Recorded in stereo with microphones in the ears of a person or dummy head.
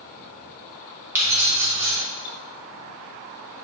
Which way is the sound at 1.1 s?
10° right (ahead or behind).